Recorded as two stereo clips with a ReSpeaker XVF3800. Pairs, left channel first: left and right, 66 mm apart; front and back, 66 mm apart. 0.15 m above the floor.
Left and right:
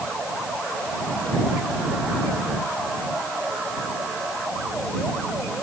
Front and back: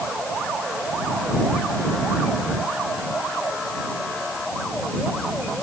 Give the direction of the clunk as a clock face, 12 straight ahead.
No clunk in this recording.